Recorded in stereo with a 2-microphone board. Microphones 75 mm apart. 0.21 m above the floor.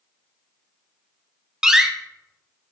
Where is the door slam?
5° right (ahead or behind), 0.7 m.